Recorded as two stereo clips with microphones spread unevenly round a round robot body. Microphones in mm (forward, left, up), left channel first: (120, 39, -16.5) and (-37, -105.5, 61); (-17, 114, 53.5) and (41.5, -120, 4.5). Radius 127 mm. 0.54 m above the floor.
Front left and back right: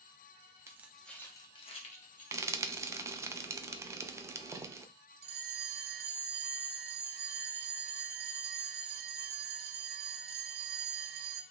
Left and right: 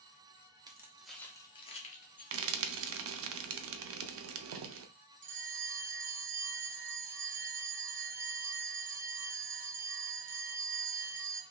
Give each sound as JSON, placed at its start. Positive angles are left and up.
{"t": 0.7, "sound": "keys jangling", "azimuth_deg": -40, "distance_m": 0.8}
{"t": 2.3, "sound": "frying", "azimuth_deg": -55, "distance_m": 0.5}
{"t": 5.2, "sound": "a bell", "azimuth_deg": -85, "distance_m": 0.6}